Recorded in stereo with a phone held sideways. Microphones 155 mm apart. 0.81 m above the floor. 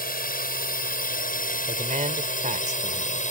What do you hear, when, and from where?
0.0 s a drone: 75° left (ahead or behind); by 3.3 s 55° left (ahead or behind)
1.7 s a man speaking: 55° right (ahead or behind)